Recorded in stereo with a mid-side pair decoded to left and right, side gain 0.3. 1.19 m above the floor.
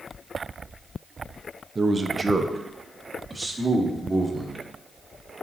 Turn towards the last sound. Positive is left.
turn(degrees=-30)